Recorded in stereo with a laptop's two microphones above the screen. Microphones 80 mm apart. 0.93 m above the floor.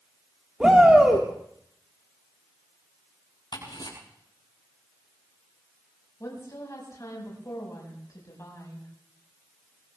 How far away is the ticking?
About 7.5 m.